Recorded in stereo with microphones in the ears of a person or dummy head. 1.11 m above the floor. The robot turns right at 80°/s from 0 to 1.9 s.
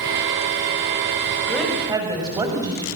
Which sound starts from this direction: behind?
A woman speaking, at 1.5 s.